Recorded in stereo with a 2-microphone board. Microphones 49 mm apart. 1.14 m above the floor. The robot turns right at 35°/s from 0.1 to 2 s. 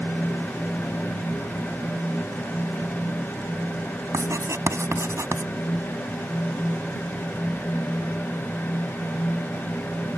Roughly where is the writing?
Right.